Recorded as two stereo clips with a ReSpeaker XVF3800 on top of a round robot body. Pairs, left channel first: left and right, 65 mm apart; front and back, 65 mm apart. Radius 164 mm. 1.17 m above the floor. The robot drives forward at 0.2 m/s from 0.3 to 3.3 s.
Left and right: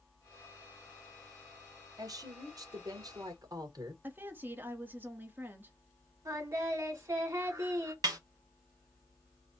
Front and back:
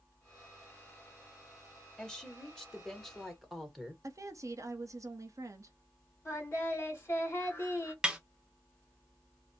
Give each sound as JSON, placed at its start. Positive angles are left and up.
{"t": 2.0, "sound": "a woman speaking", "azimuth_deg": -75, "distance_m": 1.9}
{"t": 4.0, "sound": "a woman speaking", "azimuth_deg": -145, "distance_m": 0.9}
{"t": 6.2, "sound": "singing", "azimuth_deg": -50, "distance_m": 2.0}
{"t": 8.0, "sound": "a snare drum", "azimuth_deg": -100, "distance_m": 0.7}